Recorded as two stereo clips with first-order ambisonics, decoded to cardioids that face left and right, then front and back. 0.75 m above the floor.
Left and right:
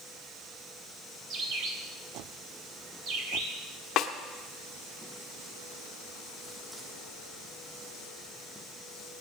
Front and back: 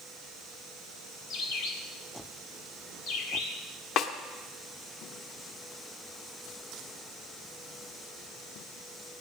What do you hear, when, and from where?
1.3 s a bird: 45° right, 1.9 m
4.0 s a snare drum: 40° left, 1.1 m